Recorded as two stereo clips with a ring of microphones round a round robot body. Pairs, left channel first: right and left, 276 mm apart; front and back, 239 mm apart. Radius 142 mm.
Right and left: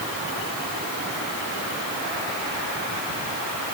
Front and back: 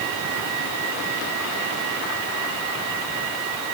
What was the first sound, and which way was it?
Only background noise.